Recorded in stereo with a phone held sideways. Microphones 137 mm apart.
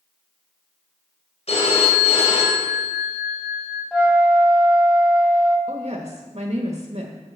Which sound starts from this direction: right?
A woman speaking, at 5.7 s.